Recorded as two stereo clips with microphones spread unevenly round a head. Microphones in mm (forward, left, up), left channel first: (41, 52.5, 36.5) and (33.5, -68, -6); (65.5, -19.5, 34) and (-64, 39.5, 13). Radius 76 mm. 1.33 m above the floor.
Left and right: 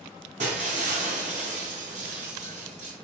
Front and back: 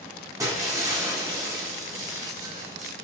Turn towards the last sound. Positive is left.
turn(degrees=-135)